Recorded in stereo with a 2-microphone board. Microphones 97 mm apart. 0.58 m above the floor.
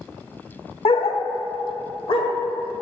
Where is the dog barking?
80° left, 0.6 m; by 2.3 s 65° left (ahead or behind), 1.2 m.